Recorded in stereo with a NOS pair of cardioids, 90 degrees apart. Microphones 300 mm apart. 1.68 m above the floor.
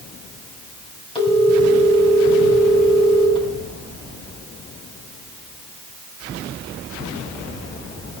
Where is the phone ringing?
15° left, 7 m.